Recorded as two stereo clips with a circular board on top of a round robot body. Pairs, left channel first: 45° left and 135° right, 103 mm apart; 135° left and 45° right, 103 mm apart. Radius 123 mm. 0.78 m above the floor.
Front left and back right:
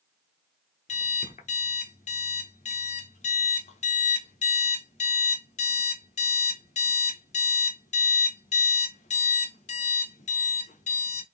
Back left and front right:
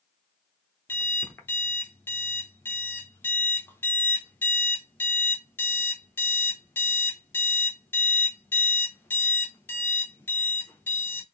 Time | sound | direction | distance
0.9 | an alarm clock | 65° left | 0.7 m